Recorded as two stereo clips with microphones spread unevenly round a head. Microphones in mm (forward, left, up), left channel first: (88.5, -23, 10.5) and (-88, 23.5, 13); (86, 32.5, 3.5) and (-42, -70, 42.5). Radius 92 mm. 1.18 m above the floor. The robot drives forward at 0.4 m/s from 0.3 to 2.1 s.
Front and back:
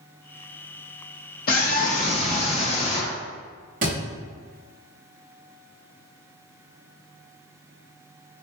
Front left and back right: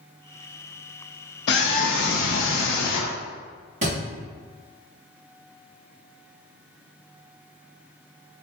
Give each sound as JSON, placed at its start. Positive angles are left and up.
{"t": 1.5, "sound": "a scream", "azimuth_deg": 30, "distance_m": 0.7}
{"t": 3.8, "sound": "a thud", "azimuth_deg": -160, "distance_m": 1.4}